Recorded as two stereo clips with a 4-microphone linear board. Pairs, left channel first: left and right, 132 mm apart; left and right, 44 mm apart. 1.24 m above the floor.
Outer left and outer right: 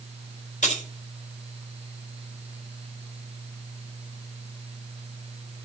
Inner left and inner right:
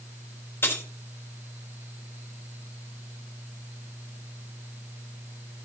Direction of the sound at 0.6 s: 70° left (ahead or behind).